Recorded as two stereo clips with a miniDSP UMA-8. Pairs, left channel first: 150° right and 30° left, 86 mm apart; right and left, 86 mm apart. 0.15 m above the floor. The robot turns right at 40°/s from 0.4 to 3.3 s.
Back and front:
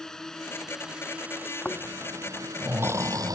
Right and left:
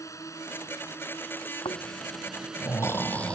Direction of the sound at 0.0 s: 70° right.